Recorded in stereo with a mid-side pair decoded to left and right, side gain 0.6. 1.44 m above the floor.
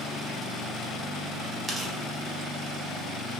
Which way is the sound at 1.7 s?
20° right.